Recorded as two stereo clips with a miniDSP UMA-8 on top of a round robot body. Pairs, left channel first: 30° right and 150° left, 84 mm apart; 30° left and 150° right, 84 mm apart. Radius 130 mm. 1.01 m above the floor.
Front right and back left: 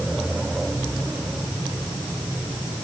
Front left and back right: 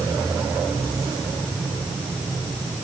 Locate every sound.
Only background noise.